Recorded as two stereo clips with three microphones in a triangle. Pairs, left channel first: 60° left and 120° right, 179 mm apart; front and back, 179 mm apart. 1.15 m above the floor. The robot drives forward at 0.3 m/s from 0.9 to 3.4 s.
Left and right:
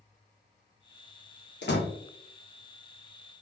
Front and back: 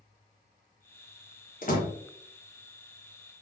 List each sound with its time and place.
1.6 s a door slam: 40° left, 1.0 m; by 1.9 s 45° left, 0.9 m